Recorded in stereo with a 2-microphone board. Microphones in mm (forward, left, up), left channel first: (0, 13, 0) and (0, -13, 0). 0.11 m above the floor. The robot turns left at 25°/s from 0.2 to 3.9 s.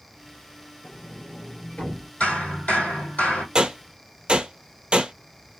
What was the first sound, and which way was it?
A sliding door, 90° left.